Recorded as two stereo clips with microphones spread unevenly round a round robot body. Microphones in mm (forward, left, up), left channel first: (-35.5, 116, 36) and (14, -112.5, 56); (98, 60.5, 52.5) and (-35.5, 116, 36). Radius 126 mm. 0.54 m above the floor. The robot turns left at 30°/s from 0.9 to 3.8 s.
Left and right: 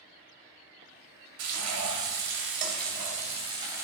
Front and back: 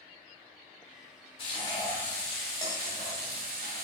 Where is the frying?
85° right, 2.0 m; by 3.8 s 155° right, 2.0 m.